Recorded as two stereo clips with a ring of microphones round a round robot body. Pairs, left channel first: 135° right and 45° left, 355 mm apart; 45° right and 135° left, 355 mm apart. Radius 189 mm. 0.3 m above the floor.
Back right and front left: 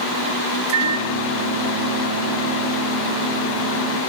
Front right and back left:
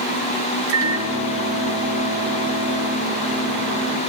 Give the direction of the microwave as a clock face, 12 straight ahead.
9 o'clock.